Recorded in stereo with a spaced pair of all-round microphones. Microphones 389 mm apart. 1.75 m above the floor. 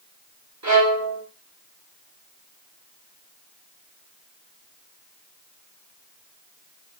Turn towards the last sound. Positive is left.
turn(degrees=-45)  # may be behind; listen again after turning